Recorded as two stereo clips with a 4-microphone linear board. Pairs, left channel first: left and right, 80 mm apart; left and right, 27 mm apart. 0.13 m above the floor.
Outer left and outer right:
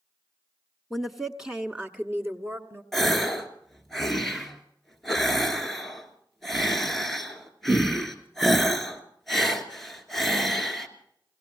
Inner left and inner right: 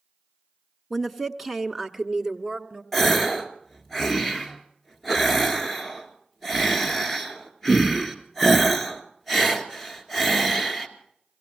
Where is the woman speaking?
Centre (ahead or behind), 1.0 m; by 2.8 s 30° right (ahead or behind), 1.2 m.